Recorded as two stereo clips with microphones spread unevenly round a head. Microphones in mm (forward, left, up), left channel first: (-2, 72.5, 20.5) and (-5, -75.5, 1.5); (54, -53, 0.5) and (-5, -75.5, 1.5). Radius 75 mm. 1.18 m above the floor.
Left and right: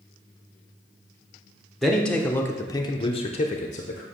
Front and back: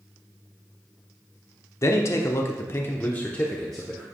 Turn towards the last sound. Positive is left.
turn(degrees=115)